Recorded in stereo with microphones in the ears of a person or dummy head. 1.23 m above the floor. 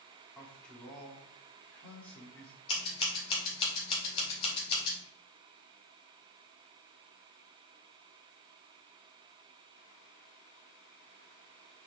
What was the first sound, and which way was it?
A man speaking, 10° left (ahead or behind).